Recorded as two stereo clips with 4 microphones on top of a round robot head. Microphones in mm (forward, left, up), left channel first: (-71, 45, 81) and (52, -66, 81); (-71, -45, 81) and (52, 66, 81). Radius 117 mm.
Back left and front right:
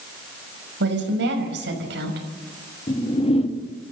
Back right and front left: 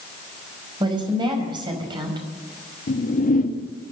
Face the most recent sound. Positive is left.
turn(degrees=-170)